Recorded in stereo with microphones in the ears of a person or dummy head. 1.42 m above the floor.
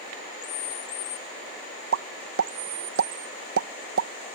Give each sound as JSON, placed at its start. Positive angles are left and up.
{"t": 1.9, "sound": "a pop", "side_deg": -80}